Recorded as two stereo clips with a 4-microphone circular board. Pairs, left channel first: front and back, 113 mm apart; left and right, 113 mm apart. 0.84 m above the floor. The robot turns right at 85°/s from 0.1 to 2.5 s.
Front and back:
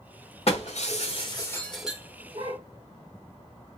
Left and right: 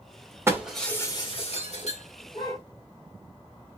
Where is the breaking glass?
25° right, 1.2 m; by 2.6 s 150° left, 1.2 m.